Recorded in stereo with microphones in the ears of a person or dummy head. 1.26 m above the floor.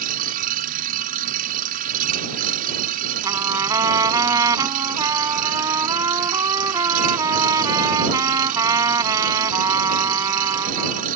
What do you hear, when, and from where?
0.0 s a machine running: 50° right (ahead or behind)
3.2 s a trumpet: 20° right (ahead or behind)